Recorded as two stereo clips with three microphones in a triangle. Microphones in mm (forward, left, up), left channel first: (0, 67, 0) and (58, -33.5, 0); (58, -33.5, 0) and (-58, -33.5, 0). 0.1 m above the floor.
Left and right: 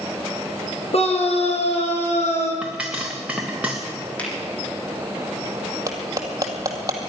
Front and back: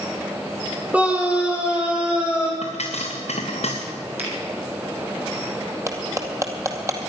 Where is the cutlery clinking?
115° right, 2 m.